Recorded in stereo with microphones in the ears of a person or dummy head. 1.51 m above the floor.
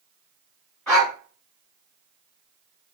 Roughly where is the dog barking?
Centre.